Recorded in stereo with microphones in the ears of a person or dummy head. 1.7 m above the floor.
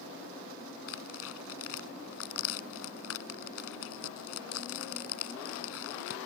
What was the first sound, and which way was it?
Tearing paper, 75° left (ahead or behind).